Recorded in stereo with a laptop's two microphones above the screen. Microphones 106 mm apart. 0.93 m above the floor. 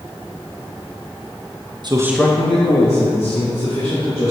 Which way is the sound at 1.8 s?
45° right (ahead or behind).